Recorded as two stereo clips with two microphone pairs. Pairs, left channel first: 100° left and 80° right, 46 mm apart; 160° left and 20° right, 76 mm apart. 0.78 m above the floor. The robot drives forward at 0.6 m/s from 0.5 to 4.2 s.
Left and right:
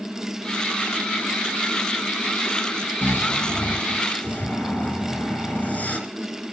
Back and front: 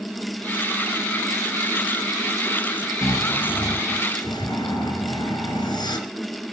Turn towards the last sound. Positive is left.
turn(degrees=150)